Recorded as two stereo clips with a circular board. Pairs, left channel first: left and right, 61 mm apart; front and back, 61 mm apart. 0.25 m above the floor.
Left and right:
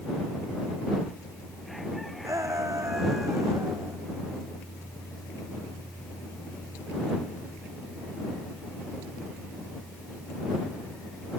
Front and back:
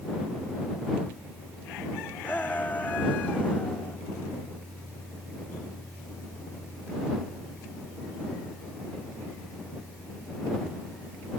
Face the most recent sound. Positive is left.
turn(degrees=-60)